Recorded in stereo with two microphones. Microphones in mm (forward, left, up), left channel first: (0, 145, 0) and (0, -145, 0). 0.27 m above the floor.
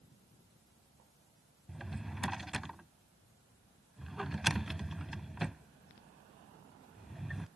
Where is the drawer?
Centre (ahead or behind).